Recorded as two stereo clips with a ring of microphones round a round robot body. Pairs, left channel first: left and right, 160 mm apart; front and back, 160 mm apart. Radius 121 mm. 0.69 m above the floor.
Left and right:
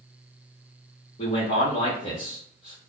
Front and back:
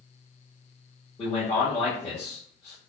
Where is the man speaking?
50° left, 1.3 m.